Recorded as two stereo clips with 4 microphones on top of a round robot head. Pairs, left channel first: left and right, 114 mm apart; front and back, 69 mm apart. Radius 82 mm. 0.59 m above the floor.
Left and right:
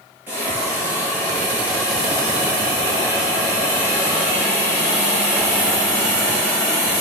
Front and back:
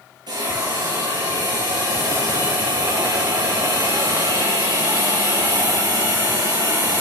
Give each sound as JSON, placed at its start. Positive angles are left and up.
{"t": 0.3, "sound": "a hiss", "azimuth_deg": -165, "distance_m": 7.0}